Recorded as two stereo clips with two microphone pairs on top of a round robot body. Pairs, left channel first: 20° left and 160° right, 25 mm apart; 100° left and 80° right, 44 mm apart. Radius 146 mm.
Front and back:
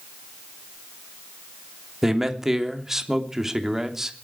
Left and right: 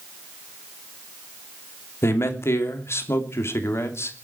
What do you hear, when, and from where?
2.0 s a man speaking: 125° left, 3 m